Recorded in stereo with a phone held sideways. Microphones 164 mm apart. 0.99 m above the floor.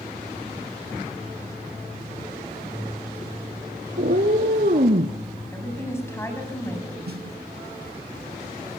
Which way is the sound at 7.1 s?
70° right (ahead or behind).